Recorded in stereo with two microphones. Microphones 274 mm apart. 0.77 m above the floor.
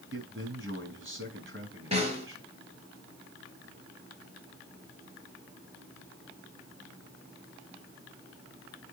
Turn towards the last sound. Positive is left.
turn(degrees=-25)  # may be behind; listen again after turning